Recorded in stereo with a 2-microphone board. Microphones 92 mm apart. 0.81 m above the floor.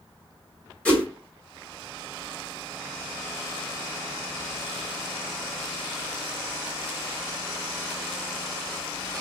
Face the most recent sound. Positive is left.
turn(degrees=10)  # may be behind; listen again after turning